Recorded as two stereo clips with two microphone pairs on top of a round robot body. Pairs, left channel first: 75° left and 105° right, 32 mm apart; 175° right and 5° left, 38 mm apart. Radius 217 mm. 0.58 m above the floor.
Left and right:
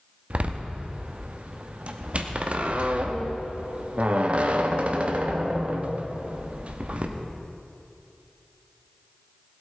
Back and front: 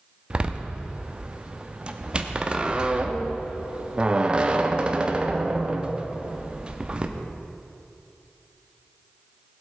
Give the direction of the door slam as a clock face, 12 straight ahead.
2 o'clock.